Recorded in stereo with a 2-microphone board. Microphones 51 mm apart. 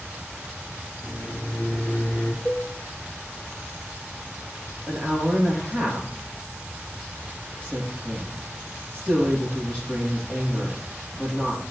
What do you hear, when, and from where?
1.0 s a microwave: 45° left (ahead or behind), 1.5 m
2.5 s a cowbell: 35° left (ahead or behind), 1.8 m
4.9 s a woman speaking: 30° left (ahead or behind), 4.5 m